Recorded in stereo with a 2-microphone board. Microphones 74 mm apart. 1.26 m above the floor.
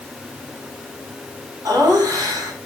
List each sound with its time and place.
1.6 s laughter: 60° right (ahead or behind), 4.5 m